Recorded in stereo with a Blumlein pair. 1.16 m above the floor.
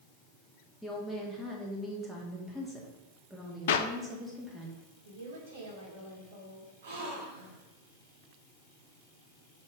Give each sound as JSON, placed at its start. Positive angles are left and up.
{"t": 0.8, "sound": "a woman speaking", "azimuth_deg": 0, "distance_m": 2.5}
{"t": 3.7, "sound": "a clap", "azimuth_deg": 55, "distance_m": 0.7}
{"t": 5.0, "sound": "a woman speaking", "azimuth_deg": -60, "distance_m": 3.5}
{"t": 6.8, "sound": "a gasp", "azimuth_deg": -60, "distance_m": 3.0}